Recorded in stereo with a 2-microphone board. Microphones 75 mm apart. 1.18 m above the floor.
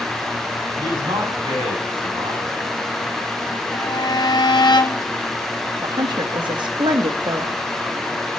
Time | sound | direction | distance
0.8 | a man speaking | 85° right | 9 m
3.7 | a violin | 65° left (ahead or behind) | 1.4 m
5.8 | a woman speaking | 75° right (ahead or behind) | 1.5 m